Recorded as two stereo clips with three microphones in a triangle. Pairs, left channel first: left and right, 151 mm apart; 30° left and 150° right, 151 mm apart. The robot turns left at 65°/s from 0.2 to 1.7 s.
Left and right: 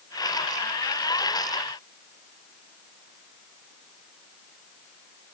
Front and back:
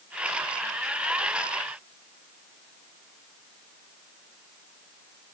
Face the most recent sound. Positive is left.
No sound to turn to.